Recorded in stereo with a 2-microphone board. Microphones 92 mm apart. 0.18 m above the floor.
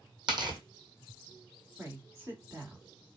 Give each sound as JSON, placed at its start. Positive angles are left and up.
{"t": 0.3, "sound": "tearing paper", "side_deg": -55, "distance_m": 1.6}
{"t": 1.8, "sound": "a woman speaking", "side_deg": -30, "distance_m": 1.7}